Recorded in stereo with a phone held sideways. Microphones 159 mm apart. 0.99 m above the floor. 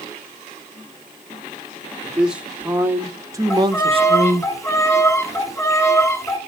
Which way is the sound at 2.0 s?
5° right (ahead or behind).